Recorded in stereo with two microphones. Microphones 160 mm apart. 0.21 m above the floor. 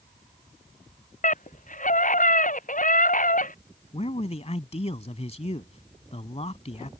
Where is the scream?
55° left (ahead or behind).